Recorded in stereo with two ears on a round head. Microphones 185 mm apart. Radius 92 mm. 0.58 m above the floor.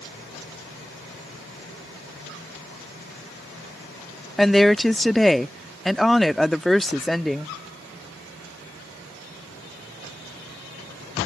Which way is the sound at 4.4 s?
Centre (ahead or behind).